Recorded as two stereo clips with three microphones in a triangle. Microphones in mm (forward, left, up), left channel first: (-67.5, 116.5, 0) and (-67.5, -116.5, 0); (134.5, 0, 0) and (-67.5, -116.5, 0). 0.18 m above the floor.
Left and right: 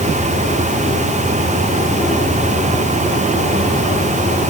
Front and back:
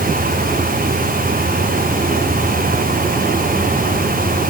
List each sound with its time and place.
Only background noise.